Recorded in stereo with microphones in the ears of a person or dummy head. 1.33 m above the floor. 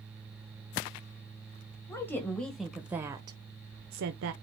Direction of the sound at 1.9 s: 15° left (ahead or behind).